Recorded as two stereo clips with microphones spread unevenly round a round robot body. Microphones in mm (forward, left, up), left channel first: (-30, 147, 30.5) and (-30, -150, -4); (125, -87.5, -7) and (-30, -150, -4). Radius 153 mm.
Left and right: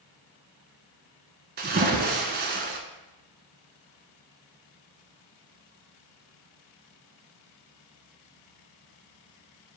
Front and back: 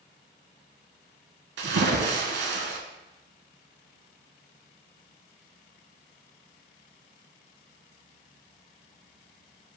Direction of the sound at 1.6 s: 150° right.